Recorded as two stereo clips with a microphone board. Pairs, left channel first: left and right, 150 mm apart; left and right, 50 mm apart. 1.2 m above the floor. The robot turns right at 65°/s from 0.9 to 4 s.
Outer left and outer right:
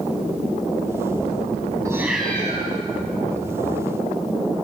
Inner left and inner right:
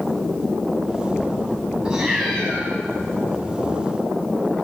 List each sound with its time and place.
1.9 s a cat meowing: 20° right, 5 m; by 2.7 s 30° left, 5 m